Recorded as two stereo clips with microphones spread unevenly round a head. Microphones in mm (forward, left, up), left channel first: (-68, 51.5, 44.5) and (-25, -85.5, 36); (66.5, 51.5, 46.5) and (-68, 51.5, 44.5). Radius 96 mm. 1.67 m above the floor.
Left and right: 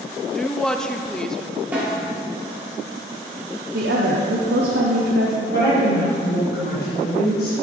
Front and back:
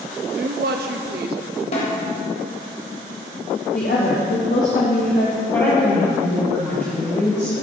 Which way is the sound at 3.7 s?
45° right.